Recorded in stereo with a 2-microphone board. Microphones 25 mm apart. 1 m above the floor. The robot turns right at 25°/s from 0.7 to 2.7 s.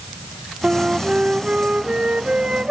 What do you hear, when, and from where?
0.6 s a flute: 130° right, 0.5 m; by 2.7 s 80° right, 0.5 m